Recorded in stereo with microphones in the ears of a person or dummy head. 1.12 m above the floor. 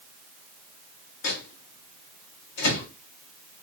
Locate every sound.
1.2 s a microwave: 55° left (ahead or behind), 1.4 m